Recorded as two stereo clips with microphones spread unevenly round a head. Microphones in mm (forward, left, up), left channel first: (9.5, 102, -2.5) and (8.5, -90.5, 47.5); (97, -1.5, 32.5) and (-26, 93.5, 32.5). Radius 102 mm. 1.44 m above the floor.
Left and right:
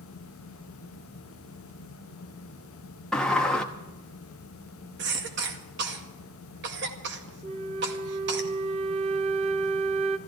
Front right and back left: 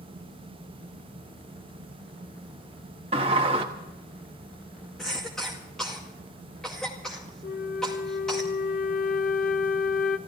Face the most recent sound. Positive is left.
turn(degrees=-60)